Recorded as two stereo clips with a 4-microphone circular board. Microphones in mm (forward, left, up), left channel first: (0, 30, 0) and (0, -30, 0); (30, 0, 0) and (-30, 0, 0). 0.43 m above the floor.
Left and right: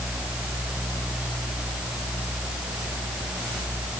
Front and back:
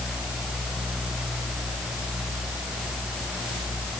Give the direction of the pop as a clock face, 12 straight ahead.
I don't hear a pop.